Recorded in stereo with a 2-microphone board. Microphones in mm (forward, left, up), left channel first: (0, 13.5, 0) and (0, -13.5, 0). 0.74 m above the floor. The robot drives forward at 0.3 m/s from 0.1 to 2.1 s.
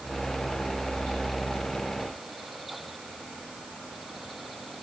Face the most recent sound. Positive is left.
No sound to turn to.